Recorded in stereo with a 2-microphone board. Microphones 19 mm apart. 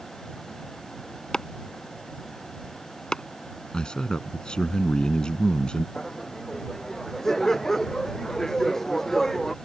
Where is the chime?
I don't hear a chime.